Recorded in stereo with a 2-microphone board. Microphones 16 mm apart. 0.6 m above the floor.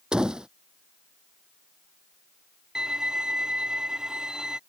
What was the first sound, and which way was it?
A door slam, 60° right (ahead or behind).